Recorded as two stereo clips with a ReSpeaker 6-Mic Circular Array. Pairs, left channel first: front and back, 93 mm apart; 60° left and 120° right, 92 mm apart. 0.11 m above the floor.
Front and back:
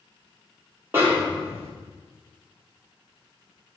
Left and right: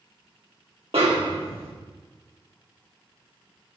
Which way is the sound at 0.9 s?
115° right.